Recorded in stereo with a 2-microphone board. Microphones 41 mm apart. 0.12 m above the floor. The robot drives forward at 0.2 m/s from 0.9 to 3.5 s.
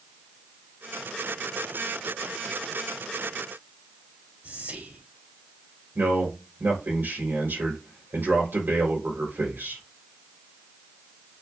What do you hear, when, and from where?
4.4 s whispering: 50° right (ahead or behind), 3 m
6.0 s a man speaking: 65° right (ahead or behind), 4 m